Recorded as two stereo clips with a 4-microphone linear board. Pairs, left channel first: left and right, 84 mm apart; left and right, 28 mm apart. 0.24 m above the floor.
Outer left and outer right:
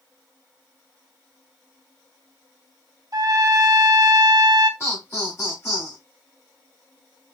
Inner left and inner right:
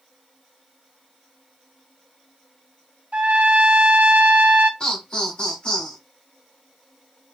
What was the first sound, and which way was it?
A trumpet, 55° right (ahead or behind).